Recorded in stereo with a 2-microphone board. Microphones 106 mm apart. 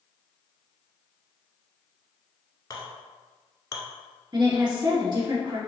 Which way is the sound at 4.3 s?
45° right (ahead or behind).